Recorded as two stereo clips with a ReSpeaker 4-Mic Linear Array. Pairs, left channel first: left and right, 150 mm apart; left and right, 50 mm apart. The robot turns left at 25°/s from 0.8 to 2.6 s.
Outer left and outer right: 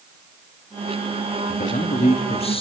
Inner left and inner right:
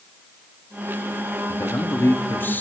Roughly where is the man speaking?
Left.